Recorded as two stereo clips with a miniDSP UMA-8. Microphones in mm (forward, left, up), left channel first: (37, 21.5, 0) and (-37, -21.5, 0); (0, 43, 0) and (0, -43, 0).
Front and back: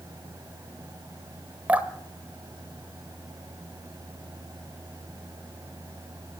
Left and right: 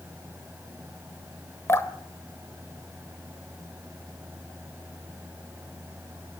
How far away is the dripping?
About 1.7 m.